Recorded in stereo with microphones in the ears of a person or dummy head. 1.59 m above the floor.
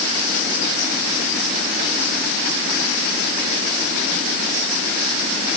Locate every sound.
Only background noise.